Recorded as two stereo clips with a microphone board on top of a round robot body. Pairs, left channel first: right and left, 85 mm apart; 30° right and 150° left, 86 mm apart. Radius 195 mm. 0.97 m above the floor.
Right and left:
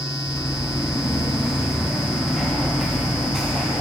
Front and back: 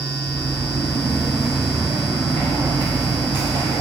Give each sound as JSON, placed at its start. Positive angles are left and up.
{"t": 0.3, "sound": "footsteps", "azimuth_deg": -20, "distance_m": 1.2}